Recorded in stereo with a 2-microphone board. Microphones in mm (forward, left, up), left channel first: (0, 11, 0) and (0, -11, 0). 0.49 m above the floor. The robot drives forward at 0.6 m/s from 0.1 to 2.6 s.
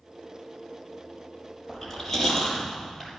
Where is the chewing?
15° left (ahead or behind), 6 m.